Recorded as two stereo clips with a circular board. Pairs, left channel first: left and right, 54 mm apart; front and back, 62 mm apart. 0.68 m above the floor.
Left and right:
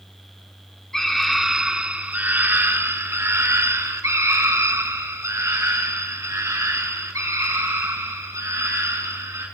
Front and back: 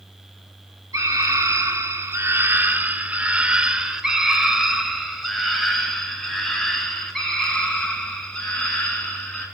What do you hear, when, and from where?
0.9 s a scream: 170° left, 1.5 m; by 9.4 s 80° right, 6.5 m